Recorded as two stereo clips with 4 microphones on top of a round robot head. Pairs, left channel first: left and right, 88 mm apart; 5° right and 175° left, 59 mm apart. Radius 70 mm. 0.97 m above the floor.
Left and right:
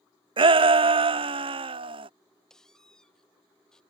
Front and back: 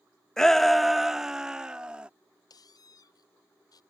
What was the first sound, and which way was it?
A shout, 85° right.